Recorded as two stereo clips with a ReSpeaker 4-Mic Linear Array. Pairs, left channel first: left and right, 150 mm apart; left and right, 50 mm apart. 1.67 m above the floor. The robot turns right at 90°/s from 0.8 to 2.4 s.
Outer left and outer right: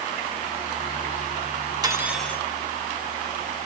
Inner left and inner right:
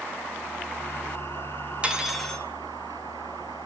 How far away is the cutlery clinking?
About 1.2 m.